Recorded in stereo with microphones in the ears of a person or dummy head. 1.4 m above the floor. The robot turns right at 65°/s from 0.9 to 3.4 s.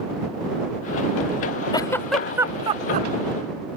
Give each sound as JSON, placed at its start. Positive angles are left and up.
{"t": 1.7, "sound": "a giggle", "side_deg": 20}